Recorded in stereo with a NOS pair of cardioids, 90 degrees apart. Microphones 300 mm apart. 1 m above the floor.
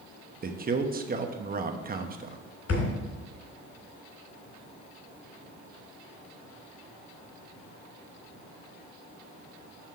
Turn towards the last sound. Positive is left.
turn(degrees=55)